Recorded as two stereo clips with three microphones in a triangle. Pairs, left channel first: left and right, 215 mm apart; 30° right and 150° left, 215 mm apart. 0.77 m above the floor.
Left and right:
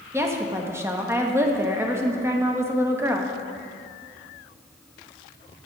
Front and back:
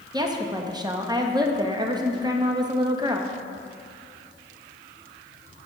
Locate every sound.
0.1 s a woman speaking: 155° right, 0.7 m